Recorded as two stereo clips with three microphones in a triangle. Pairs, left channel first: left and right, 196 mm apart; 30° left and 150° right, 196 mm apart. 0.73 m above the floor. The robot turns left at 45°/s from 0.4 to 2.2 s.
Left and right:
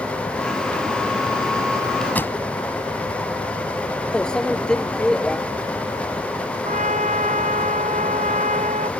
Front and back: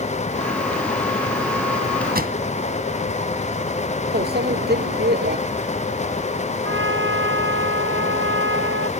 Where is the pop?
170° left.